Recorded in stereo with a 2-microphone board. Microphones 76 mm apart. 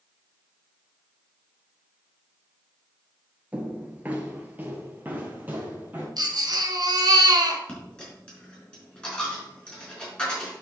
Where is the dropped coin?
15° left (ahead or behind), 4 m.